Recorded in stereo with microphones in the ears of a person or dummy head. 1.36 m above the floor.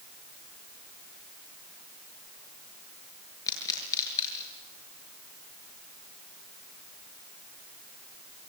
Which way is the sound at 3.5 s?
15° left (ahead or behind).